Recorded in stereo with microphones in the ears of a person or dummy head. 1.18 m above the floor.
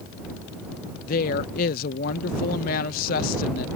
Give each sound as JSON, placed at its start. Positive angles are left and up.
{"t": 1.1, "sound": "a woman speaking", "side_deg": 50}